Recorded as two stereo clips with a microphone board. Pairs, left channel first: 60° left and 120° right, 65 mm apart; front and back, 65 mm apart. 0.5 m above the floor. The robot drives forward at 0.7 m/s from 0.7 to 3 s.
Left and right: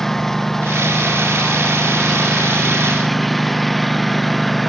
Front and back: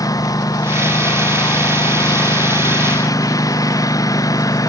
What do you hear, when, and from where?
0.0 s a lawn mower: 25° right; by 4.7 s 30° right